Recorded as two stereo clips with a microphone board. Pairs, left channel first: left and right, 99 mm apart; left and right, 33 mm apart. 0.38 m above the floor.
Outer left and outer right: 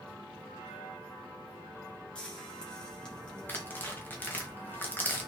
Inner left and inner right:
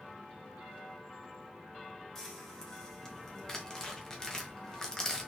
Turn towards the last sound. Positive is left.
turn(degrees=20)  # may be behind; listen again after turning